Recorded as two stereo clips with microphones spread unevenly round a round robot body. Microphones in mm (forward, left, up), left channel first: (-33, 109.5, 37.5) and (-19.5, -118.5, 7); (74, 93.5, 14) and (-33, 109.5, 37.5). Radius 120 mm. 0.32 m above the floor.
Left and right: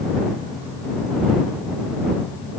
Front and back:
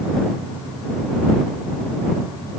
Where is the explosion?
No explosion in this recording.